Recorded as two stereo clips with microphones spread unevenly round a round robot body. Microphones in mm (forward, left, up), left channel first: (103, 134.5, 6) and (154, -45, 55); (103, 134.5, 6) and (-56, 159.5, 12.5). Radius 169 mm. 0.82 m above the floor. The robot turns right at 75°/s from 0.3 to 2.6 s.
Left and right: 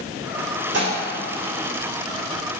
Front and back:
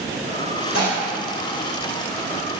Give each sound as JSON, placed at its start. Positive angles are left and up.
{"t": 0.7, "sound": "dishes clattering", "azimuth_deg": -60, "distance_m": 1.9}